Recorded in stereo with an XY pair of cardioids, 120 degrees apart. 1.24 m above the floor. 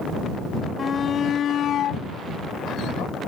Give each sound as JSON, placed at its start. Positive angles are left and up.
{"t": 0.8, "sound": "a shout", "azimuth_deg": 30}